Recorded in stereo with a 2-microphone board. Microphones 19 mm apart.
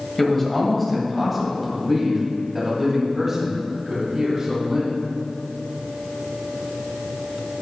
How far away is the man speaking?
About 2 m.